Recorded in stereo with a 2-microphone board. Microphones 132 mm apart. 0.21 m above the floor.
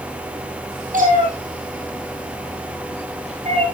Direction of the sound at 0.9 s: 80° right.